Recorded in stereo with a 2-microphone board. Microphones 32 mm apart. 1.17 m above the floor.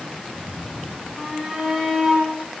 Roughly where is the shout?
Centre.